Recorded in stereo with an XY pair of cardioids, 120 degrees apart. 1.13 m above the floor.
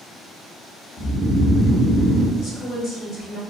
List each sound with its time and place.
1.0 s snoring: 15° left, 0.7 m
2.4 s a woman speaking: 65° left, 1.2 m